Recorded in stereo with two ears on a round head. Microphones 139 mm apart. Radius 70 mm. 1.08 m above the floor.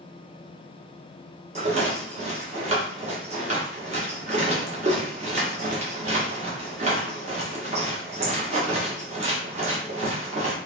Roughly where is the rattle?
Right.